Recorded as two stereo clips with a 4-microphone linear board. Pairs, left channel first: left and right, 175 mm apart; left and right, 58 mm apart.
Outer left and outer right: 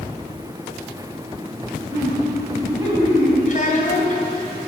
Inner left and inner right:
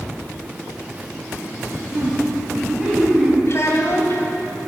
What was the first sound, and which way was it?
Laughter, 15° right (ahead or behind).